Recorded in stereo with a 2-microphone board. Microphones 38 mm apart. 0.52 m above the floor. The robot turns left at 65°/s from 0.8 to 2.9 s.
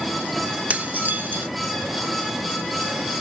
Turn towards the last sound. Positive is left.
turn(degrees=175)